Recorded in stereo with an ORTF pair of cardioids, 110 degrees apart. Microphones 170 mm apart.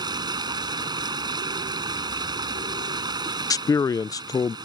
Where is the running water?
25° right.